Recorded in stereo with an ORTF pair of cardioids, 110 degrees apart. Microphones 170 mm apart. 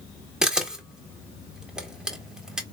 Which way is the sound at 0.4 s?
5° right.